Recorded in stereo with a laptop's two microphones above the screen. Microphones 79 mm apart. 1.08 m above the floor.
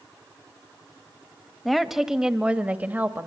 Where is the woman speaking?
Centre (ahead or behind), 1.4 m; by 3.3 s 25° right (ahead or behind), 1.9 m.